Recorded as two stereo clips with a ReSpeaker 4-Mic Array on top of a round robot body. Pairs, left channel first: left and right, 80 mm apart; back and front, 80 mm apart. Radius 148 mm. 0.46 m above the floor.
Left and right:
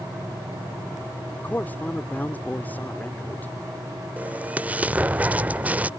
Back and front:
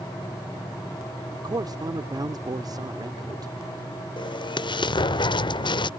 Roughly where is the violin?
No violin in this recording.